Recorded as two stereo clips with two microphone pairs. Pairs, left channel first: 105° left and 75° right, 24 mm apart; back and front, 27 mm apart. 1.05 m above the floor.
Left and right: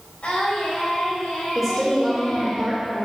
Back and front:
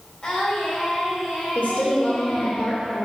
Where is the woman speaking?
170° right, 2.5 m.